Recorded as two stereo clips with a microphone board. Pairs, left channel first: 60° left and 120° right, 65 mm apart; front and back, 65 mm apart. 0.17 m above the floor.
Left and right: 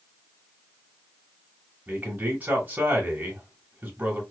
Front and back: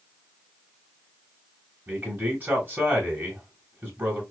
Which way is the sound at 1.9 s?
160° right.